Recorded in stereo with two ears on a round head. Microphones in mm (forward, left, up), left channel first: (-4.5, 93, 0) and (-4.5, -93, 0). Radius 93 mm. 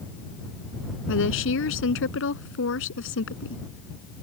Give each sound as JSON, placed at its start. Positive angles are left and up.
{"t": 1.1, "sound": "a woman speaking", "side_deg": 70}